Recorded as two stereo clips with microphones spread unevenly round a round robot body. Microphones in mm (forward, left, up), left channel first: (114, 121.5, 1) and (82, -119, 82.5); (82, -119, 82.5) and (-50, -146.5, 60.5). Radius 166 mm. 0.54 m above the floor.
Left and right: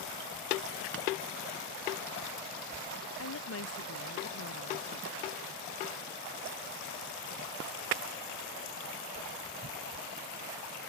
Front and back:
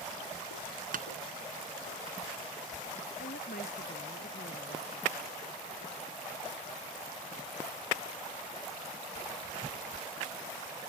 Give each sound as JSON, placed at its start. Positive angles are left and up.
{"t": 0.9, "sound": "tapping", "azimuth_deg": -150}
{"t": 3.2, "sound": "a woman speaking", "azimuth_deg": 60}